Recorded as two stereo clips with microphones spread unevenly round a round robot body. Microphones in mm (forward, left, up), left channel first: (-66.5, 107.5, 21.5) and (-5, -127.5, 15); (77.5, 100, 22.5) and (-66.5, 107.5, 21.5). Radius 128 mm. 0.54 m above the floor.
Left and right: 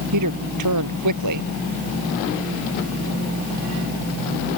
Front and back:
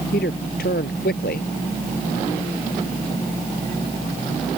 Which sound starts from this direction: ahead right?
A man speaking, at 0.1 s.